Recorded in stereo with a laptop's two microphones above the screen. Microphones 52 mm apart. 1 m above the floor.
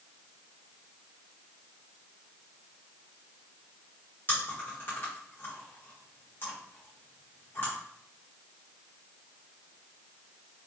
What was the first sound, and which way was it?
Chewing, 40° left (ahead or behind).